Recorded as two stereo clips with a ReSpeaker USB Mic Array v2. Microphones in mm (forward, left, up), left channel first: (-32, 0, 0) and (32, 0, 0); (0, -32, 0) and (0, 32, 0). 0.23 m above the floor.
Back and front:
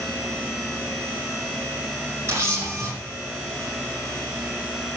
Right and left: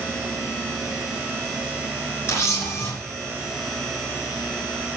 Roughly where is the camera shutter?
Ahead right.